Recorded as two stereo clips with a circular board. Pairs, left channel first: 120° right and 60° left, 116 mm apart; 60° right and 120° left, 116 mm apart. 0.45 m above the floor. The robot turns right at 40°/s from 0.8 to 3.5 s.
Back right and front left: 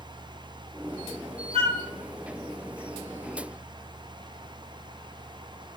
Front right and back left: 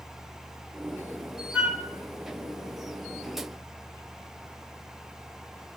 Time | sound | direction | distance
1.5 | a flute | 45° left | 1.2 m